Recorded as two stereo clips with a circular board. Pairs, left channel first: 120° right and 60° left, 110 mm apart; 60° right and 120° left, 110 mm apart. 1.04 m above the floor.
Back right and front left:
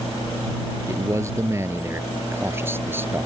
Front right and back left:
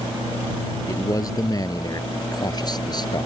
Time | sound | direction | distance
0.9 | a man speaking | 5° right | ?